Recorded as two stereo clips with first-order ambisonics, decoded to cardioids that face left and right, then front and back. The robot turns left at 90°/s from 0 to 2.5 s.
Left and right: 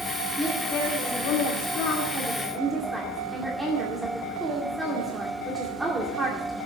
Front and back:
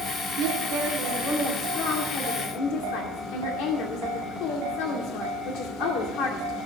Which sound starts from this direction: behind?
A woman speaking, at 0.4 s.